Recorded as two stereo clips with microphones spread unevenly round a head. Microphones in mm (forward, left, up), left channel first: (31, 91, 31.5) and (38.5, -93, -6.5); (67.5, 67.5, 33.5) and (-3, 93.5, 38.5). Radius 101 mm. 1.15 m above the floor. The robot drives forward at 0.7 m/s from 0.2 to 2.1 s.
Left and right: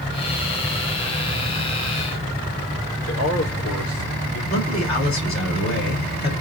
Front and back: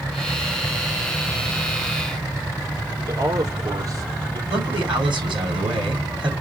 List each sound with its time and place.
3.1 s a man speaking: 125° left, 4.5 m
4.5 s a man speaking: 150° left, 4 m